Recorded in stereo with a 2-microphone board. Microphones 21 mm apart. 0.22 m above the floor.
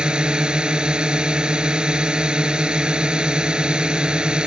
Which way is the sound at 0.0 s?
45° right (ahead or behind).